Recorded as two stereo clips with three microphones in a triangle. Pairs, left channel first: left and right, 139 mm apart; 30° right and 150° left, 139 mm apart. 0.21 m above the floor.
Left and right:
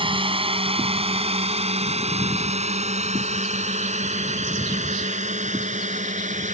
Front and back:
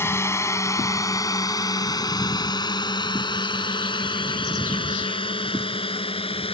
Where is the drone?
90° right; by 6.5 s 75° right.